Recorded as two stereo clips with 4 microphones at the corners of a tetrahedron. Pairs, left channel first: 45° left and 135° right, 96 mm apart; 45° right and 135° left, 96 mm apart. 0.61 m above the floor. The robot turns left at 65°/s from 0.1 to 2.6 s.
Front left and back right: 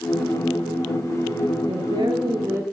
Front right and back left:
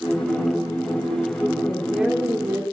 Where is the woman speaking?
125° right, 1.6 m; by 2.6 s 175° left, 1.6 m.